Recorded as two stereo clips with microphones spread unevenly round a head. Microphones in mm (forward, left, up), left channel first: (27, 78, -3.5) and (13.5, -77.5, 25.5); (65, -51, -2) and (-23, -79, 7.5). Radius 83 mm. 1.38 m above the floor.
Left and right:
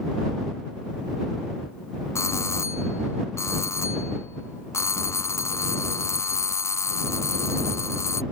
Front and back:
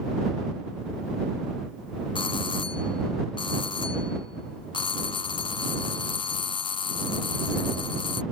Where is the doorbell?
20° left.